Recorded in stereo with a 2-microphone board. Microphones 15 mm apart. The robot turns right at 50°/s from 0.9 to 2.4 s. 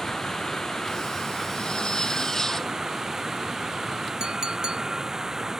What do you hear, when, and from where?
0.0 s running water: 140° left; by 5.6 s 145° right
1.6 s a zipper: 105° left; by 2.8 s 150° left
4.2 s a clink: 60° right (ahead or behind)